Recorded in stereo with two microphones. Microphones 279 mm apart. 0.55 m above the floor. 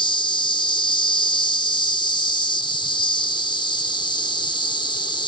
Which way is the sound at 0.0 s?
15° left (ahead or behind).